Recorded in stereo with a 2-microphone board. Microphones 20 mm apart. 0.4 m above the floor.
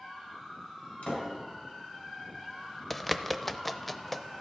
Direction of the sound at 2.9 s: 10° left (ahead or behind).